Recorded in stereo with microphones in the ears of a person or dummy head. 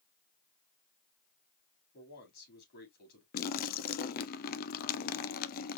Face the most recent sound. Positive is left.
turn(degrees=45)  # may be behind; listen again after turning